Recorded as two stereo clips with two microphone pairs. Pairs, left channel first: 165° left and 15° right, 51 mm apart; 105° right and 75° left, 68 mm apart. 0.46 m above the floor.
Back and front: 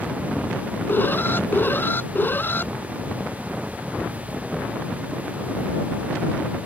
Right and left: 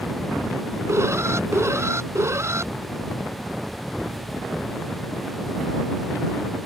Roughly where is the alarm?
Behind left.